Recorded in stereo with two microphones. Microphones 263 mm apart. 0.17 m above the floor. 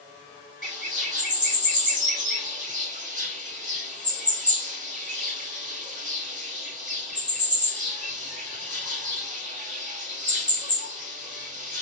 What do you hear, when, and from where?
0.6 s a bird: 30° right (ahead or behind), 1.2 m